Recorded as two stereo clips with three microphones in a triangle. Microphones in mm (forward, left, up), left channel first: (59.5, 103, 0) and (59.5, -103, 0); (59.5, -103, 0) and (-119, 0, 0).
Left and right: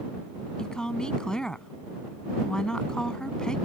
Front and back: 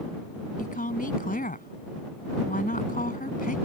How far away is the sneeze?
I don't hear a sneeze.